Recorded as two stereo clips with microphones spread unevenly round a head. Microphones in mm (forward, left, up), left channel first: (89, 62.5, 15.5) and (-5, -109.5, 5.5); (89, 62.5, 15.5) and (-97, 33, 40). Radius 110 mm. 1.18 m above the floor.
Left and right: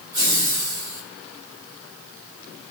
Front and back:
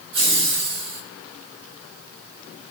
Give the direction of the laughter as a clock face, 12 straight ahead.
6 o'clock.